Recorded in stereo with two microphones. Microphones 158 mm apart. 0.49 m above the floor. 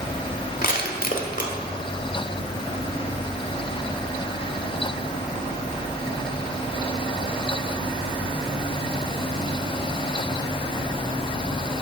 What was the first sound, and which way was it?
Crushing, 60° left (ahead or behind).